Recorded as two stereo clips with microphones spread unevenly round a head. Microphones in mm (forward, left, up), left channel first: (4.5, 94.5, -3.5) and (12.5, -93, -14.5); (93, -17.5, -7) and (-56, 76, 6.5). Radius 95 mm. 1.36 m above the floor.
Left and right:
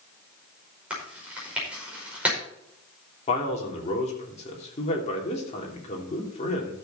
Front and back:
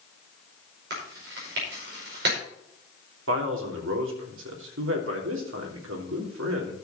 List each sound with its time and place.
0.9 s chewing: 170° right, 5 m
3.3 s a man speaking: 150° left, 3 m